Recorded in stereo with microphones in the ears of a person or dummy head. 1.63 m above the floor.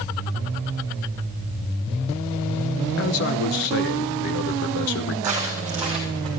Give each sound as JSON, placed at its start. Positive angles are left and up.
{"t": 3.0, "sound": "a man speaking", "side_deg": 50, "distance_m": 0.8}
{"t": 5.2, "sound": "footsteps", "side_deg": -10, "distance_m": 4.0}